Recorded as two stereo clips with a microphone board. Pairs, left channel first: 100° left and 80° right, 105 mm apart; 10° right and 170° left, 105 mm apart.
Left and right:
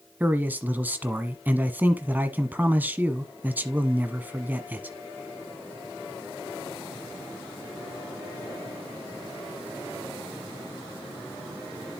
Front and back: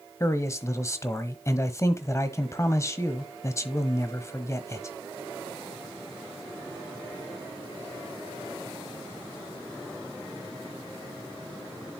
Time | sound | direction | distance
0.2 | a man speaking | 25° right | 1.2 m